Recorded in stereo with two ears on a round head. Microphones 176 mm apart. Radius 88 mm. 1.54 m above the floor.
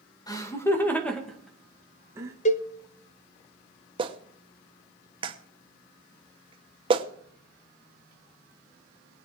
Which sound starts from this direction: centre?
Laughter, at 0.3 s.